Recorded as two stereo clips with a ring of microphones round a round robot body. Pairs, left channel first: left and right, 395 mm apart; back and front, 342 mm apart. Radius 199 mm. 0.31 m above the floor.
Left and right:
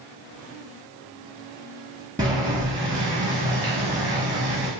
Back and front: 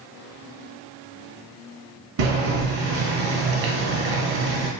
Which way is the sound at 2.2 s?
10° right.